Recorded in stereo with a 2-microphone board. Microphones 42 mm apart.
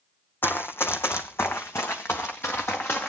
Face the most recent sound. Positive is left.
turn(degrees=60)  # may be behind; listen again after turning